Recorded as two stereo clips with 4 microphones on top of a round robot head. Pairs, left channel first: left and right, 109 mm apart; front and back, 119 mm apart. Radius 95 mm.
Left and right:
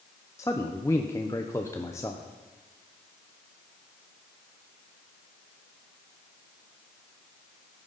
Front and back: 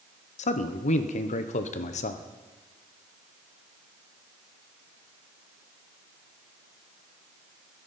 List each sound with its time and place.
0.4 s a man speaking: 15° left, 0.8 m